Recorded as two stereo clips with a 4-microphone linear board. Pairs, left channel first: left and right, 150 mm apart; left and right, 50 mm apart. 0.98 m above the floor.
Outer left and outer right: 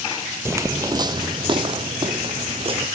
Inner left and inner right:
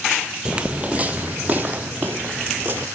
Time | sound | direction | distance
0.5 | footsteps | 15° right (ahead or behind) | 1.0 m